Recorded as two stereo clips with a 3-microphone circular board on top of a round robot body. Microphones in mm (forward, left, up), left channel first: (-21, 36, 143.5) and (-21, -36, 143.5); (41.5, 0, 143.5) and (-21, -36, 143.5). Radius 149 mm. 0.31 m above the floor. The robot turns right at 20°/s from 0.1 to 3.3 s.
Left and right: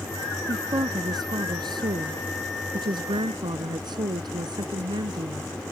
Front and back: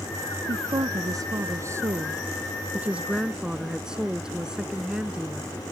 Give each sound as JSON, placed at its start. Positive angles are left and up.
{"t": 0.5, "sound": "a woman speaking", "azimuth_deg": -125}